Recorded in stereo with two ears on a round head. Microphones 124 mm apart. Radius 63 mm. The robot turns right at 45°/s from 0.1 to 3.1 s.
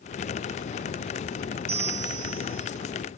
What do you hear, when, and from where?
1.7 s a bell: 130° right, 1.6 m; by 2.7 s 85° right, 1.6 m